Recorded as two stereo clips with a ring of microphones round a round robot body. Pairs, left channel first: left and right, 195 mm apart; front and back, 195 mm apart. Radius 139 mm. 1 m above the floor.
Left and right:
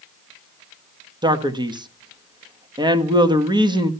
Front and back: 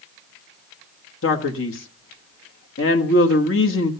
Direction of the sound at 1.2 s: 20° right.